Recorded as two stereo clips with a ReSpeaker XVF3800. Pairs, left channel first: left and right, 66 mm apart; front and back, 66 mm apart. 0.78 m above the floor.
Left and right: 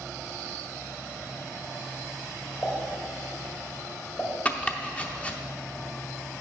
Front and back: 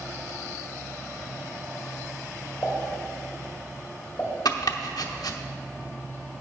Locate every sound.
2.6 s a pop: 45° left, 1.7 m
4.5 s chopping: 20° left, 0.7 m